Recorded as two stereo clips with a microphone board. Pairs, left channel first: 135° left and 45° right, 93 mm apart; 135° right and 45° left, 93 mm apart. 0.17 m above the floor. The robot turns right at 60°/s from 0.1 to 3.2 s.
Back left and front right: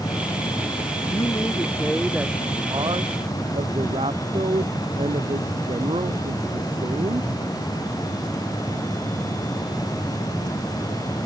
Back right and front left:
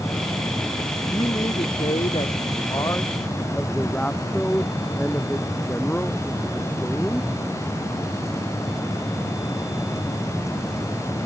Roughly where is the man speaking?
Behind.